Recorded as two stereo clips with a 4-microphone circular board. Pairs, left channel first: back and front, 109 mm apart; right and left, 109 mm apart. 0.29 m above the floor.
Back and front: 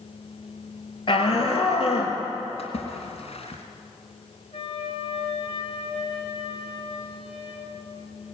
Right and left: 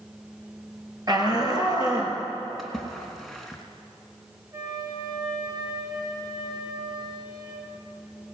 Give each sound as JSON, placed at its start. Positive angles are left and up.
{"t": 1.1, "sound": "a shout", "azimuth_deg": 140, "distance_m": 5.0}
{"t": 2.6, "sound": "a splash", "azimuth_deg": 180, "distance_m": 3.0}
{"t": 4.5, "sound": "a flute", "azimuth_deg": 145, "distance_m": 5.0}